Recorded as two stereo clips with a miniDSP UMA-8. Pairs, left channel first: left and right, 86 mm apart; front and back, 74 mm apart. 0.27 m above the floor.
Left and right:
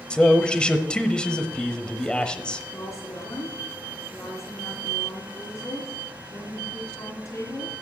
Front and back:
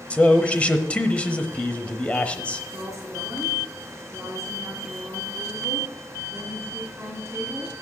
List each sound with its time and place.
0.1 s a man speaking: 30° left, 0.9 m
2.7 s a woman speaking: 125° left, 2.5 m